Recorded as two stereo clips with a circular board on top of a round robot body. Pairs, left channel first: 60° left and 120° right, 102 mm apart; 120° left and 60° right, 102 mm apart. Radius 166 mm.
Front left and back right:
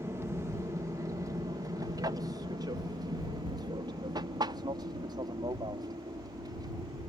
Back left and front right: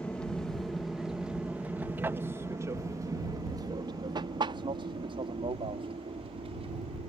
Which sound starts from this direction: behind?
An aircraft, at 0.0 s.